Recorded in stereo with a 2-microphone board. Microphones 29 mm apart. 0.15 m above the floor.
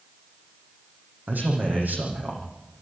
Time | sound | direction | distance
1.3 | a man speaking | 80° right | 6.5 m